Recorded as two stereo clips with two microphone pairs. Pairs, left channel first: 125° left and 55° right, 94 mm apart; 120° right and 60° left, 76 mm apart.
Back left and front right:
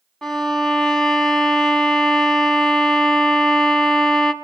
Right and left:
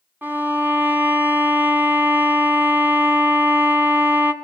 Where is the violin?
55° left, 1.5 m.